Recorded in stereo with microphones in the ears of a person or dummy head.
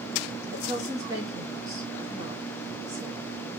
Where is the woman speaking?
15° right (ahead or behind), 1.6 m.